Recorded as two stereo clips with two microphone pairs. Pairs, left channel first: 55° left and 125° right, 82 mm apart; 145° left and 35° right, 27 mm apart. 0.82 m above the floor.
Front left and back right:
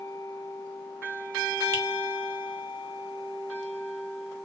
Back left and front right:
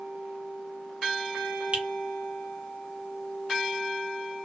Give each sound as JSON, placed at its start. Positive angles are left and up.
{"t": 1.7, "sound": "a finger snap", "azimuth_deg": -70, "distance_m": 1.1}